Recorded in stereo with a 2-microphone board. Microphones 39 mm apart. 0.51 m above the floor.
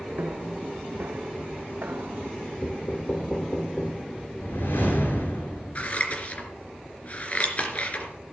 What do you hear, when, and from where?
0.2 s footsteps: 60° right (ahead or behind), 1.6 m; by 2.3 s 70° right (ahead or behind), 1.8 m
2.6 s knocking: 35° left (ahead or behind), 1.3 m
4.4 s a whoosh: 75° left (ahead or behind), 6 m
5.8 s scissors: 40° left (ahead or behind), 3 m